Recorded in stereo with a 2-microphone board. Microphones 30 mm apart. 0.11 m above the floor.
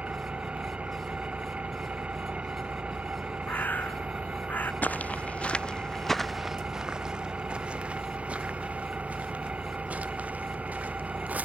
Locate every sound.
0.0 s an engine running: 45° right (ahead or behind)
3.5 s a bird: 80° left
4.8 s footsteps: 60° left (ahead or behind); by 11.4 s 60° right (ahead or behind)